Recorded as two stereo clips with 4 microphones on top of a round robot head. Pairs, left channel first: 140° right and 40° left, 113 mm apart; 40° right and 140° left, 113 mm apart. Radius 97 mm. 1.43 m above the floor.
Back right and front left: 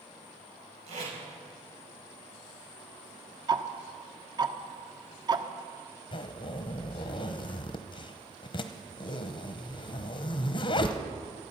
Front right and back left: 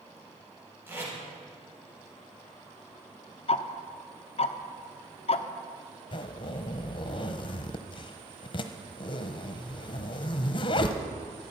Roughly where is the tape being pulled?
Ahead left.